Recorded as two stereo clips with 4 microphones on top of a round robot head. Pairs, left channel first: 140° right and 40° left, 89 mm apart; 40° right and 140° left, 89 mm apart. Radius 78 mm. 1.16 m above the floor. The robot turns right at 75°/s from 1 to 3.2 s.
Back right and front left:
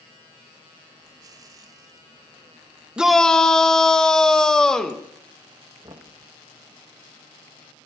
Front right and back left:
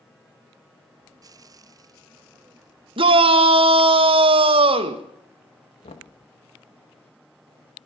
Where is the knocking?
15° right, 1.2 m.